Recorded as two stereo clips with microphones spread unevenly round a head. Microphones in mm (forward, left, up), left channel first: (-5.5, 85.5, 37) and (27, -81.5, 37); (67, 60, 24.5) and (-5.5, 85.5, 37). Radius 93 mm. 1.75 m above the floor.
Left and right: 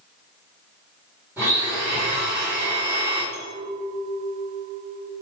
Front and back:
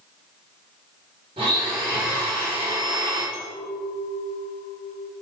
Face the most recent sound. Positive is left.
turn(degrees=-30)